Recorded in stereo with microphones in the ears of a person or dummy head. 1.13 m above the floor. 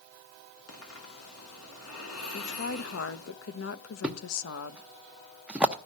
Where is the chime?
I don't hear a chime.